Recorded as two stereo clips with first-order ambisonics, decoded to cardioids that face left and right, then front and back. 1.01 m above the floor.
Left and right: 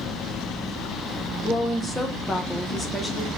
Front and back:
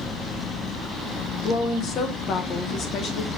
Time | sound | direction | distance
1.4 | a woman speaking | 15° left | 0.7 m